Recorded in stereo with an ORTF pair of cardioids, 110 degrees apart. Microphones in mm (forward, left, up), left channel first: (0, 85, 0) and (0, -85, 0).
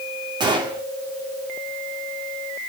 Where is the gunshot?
25° right, 2.5 m.